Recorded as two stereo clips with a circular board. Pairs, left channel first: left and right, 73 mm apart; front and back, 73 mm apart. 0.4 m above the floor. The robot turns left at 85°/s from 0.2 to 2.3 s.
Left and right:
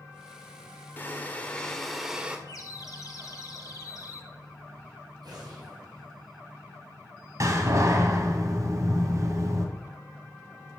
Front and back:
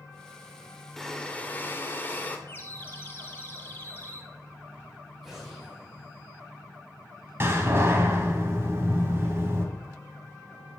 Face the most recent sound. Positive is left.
turn(degrees=-130)